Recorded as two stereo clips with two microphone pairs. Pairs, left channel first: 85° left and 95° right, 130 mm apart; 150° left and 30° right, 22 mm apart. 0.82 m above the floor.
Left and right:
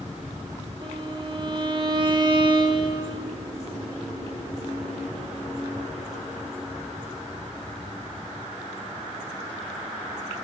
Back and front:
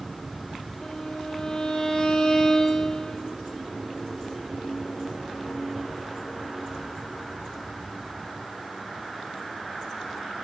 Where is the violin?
145° right, 2 m.